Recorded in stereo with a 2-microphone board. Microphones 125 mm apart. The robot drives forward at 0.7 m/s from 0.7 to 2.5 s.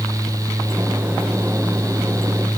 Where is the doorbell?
I don't hear a doorbell.